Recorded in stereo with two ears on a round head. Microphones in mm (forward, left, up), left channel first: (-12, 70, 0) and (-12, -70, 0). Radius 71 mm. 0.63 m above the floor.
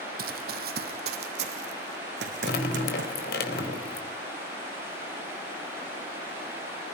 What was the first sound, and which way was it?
Running footsteps, 65° right (ahead or behind).